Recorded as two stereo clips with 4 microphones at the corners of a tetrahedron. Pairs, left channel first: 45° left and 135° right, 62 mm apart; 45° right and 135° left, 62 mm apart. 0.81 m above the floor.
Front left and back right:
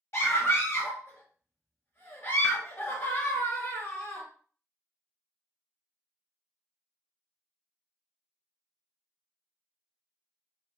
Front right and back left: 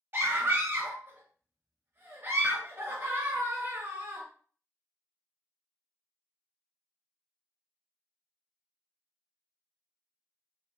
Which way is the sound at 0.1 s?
85° left.